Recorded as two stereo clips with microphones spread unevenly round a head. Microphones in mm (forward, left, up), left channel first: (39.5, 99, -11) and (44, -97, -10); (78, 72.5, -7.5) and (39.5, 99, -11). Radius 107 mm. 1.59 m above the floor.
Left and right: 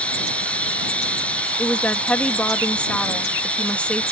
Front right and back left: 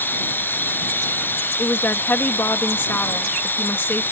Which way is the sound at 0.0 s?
10° left.